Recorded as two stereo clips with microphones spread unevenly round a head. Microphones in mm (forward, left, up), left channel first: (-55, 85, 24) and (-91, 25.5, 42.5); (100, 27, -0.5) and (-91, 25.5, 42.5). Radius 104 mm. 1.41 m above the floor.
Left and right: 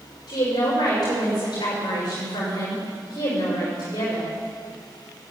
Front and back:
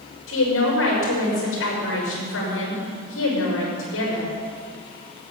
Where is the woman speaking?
15° left, 6 m.